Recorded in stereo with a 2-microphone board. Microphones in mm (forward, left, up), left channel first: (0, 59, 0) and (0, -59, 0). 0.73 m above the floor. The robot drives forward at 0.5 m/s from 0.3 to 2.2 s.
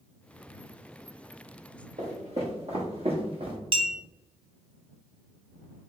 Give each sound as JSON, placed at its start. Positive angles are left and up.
{"t": 2.0, "sound": "footsteps", "side_deg": -65, "distance_m": 1.9}
{"t": 3.7, "sound": "a clink", "side_deg": -50, "distance_m": 0.6}